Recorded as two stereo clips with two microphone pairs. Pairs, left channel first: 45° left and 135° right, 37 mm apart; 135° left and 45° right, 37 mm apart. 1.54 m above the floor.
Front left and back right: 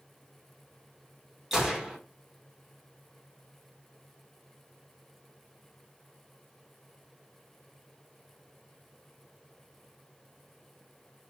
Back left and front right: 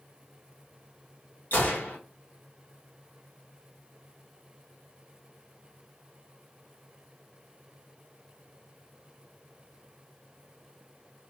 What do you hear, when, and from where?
1.5 s a gunshot: 145° left, 2.5 m